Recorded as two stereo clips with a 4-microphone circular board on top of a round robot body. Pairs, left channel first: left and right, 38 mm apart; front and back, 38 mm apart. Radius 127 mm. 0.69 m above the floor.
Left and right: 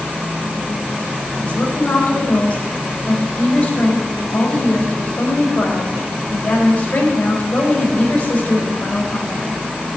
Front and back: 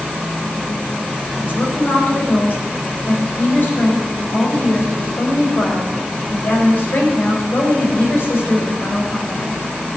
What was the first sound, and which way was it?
A woman speaking, 35° left.